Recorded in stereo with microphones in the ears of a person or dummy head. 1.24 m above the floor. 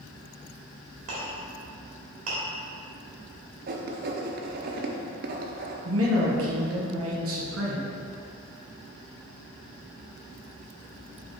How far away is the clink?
About 1.5 m.